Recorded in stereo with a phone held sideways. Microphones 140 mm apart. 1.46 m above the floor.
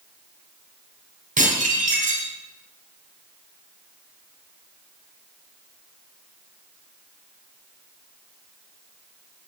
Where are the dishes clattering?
75° right (ahead or behind), 4 m.